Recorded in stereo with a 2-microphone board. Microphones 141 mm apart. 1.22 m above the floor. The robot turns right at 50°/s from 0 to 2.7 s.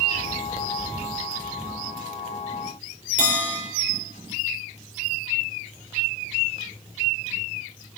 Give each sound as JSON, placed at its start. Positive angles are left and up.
{"t": 3.2, "sound": "a bell", "side_deg": -65, "distance_m": 4.5}